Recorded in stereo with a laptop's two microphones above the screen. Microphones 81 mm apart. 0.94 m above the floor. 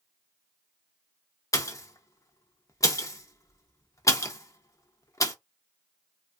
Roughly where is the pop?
Left.